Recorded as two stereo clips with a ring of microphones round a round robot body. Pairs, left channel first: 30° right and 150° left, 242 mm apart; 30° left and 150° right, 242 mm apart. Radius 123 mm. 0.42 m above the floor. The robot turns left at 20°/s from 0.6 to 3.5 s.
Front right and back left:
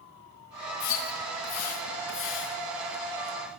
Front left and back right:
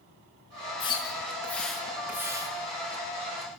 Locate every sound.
0.8 s a splash: 40° right, 4.5 m; by 2.5 s 75° right, 4.5 m